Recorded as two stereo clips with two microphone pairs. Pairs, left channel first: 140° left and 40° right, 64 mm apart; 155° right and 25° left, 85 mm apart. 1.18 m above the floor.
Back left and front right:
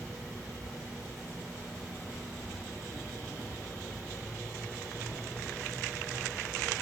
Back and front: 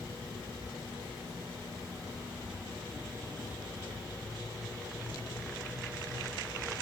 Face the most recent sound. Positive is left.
turn(degrees=30)